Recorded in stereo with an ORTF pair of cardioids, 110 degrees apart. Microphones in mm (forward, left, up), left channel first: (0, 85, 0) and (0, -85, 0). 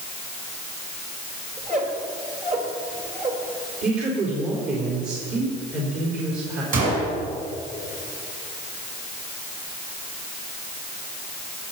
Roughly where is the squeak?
Ahead right.